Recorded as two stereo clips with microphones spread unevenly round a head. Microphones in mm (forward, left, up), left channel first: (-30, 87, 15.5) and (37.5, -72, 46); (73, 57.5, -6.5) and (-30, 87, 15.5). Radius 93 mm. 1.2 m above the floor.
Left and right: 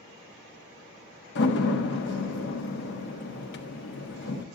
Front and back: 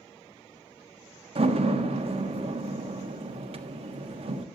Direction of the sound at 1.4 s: 140° left.